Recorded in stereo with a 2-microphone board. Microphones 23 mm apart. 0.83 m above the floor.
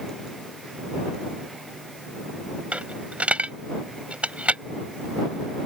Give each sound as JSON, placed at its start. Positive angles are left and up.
{"t": 2.7, "sound": "a dropped coin", "side_deg": -80}